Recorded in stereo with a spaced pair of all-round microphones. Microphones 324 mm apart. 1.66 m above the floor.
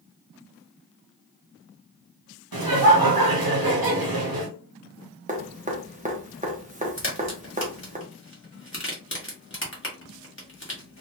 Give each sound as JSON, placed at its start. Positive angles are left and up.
{"t": 2.5, "sound": "laughter", "side_deg": -85, "distance_m": 0.9}
{"t": 5.3, "sound": "dripping", "side_deg": -20, "distance_m": 0.9}
{"t": 7.0, "sound": "a crack", "side_deg": 35, "distance_m": 1.5}